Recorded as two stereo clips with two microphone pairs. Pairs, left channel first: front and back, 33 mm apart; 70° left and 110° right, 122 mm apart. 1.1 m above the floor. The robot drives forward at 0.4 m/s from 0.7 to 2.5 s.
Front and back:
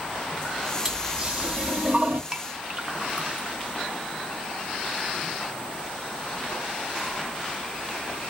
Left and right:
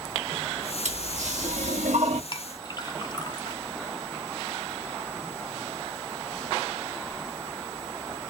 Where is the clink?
120° left, 0.7 m; by 3.6 s 125° left, 0.7 m.